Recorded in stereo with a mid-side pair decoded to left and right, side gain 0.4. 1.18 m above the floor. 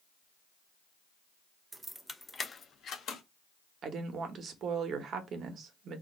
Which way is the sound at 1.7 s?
25° right.